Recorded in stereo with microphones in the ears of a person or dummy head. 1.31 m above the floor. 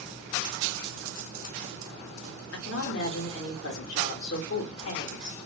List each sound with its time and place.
2.5 s a woman speaking: 60° left (ahead or behind), 0.8 m